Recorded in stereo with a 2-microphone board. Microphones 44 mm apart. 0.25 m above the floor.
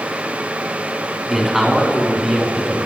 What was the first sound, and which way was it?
A man speaking, 5° right (ahead or behind).